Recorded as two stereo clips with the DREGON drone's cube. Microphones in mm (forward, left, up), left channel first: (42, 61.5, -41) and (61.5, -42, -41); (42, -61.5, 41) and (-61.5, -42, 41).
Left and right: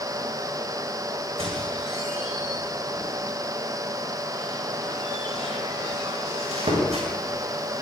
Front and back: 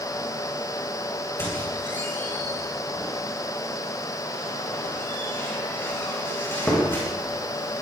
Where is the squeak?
80° right, 8.5 m.